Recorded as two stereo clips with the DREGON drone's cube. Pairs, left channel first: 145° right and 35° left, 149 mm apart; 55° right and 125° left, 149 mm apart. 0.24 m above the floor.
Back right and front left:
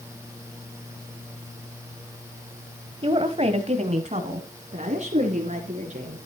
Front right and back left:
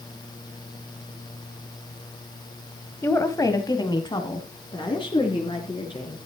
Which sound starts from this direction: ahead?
A woman speaking, at 3.0 s.